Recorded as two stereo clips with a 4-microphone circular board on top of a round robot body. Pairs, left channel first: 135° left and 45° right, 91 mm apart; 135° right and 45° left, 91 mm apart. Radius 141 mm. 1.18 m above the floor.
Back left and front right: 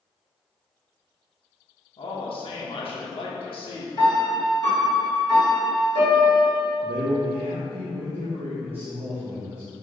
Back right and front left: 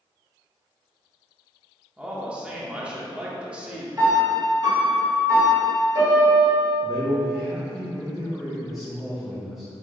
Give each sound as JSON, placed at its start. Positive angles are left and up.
{"t": 2.0, "sound": "a man speaking", "azimuth_deg": 125, "distance_m": 1.0}
{"t": 4.0, "sound": "a piano", "azimuth_deg": 95, "distance_m": 2.0}
{"t": 6.8, "sound": "a man speaking", "azimuth_deg": -40, "distance_m": 0.7}